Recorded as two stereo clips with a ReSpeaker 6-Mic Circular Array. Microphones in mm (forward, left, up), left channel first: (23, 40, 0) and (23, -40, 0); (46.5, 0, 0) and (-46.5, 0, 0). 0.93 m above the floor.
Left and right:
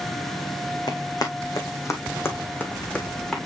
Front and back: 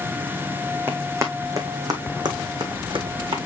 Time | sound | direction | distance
0.9 | running footsteps | 120° left | 3 m